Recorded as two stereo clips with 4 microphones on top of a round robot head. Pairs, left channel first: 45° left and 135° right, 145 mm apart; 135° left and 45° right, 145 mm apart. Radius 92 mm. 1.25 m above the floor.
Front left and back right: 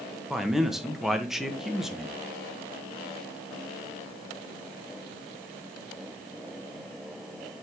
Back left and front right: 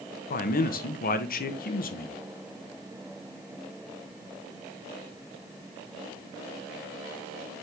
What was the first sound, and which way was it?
A man speaking, 135° left.